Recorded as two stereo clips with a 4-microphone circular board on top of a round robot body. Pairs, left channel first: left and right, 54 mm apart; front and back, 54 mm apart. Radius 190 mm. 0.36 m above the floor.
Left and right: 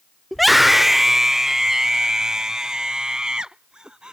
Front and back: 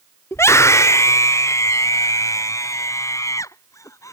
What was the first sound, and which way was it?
A scream, 5° left.